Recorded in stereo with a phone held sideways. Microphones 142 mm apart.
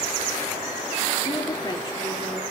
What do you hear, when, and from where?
1.2 s a woman speaking: 30° left (ahead or behind), 3.5 m